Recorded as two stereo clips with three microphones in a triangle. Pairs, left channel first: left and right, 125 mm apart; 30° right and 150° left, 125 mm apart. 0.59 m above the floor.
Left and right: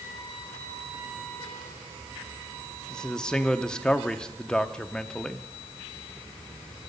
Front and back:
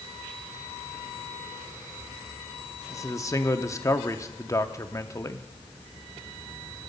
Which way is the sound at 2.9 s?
10° left.